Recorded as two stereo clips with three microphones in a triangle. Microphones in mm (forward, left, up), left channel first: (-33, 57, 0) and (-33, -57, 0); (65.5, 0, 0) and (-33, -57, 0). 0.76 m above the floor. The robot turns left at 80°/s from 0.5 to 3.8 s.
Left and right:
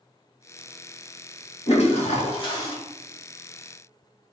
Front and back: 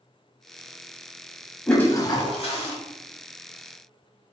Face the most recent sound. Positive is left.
turn(degrees=-55)